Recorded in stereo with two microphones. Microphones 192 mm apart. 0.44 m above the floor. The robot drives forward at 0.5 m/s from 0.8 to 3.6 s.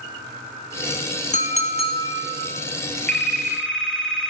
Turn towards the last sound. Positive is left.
turn(degrees=0)  # may be behind; listen again after turning